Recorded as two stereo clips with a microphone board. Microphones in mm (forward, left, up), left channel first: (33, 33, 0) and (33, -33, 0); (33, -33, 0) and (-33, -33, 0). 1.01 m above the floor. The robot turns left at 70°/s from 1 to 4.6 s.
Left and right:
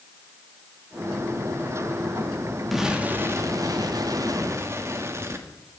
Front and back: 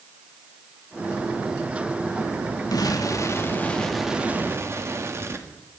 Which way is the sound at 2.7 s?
Straight ahead.